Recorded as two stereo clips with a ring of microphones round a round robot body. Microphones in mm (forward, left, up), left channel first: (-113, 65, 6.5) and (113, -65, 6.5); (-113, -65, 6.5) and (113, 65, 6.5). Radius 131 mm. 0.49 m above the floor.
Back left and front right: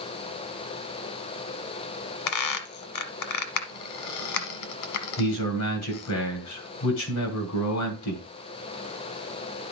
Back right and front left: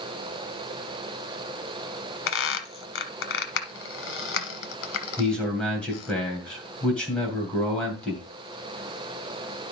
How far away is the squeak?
About 1.3 m.